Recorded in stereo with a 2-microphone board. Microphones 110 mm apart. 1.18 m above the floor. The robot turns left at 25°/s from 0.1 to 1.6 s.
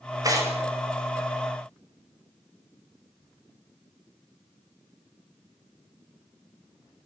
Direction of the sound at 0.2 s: 35° right (ahead or behind).